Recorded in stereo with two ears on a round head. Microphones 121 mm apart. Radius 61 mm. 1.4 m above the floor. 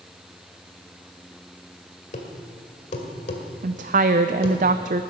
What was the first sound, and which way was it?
A thud, 55° left (ahead or behind).